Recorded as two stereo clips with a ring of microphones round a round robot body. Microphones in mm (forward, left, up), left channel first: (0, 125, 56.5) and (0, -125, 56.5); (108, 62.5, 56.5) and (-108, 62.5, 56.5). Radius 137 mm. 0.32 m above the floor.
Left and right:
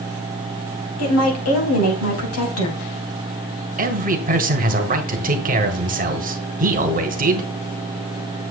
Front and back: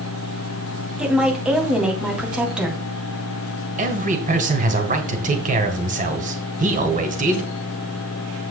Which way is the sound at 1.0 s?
95° left.